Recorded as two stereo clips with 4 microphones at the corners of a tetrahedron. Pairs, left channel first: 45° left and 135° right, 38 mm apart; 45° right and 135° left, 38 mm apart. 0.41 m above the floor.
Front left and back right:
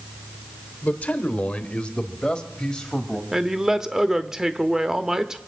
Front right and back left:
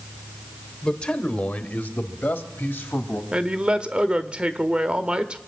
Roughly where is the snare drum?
I don't hear a snare drum.